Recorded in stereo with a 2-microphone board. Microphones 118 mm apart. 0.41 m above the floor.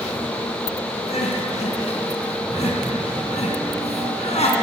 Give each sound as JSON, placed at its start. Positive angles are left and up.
{"t": 1.1, "sound": "crying", "side_deg": 65, "distance_m": 4.0}